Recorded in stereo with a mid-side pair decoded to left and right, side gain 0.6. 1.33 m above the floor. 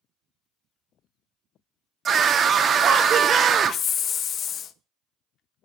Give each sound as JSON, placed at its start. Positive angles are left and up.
{"t": 2.0, "sound": "a scream", "azimuth_deg": -40, "distance_m": 1.0}
{"t": 3.6, "sound": "a hiss", "azimuth_deg": 45, "distance_m": 0.6}